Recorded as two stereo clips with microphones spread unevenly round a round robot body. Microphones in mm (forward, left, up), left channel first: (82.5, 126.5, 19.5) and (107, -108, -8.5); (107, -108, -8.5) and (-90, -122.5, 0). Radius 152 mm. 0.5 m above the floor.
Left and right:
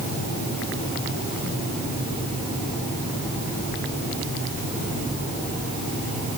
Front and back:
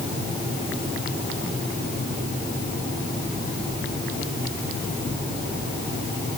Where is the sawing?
No sawing in this recording.